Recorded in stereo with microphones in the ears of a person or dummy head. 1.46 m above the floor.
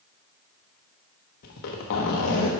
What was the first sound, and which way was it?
A zipper, 50° left (ahead or behind).